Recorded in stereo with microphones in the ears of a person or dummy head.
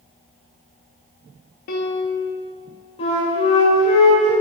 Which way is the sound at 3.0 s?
35° left (ahead or behind).